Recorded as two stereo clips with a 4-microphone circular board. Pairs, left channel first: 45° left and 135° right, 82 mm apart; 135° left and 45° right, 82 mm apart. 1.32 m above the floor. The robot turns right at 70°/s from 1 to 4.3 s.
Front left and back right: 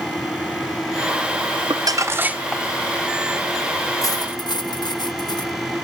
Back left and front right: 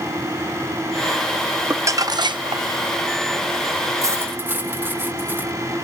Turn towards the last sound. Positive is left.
turn(degrees=20)